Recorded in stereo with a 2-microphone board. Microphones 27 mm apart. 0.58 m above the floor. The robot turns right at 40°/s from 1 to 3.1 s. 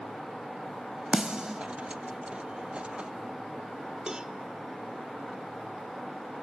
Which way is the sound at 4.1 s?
30° right (ahead or behind).